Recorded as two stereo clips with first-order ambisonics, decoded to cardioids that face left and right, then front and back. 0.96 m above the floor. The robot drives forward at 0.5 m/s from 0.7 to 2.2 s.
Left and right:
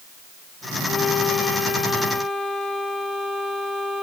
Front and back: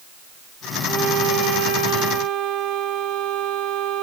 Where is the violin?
140° left, 0.6 m; by 4.0 s 165° left, 1.1 m.